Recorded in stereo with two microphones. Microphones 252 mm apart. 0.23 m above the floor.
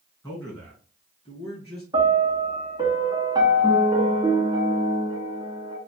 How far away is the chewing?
I don't hear chewing.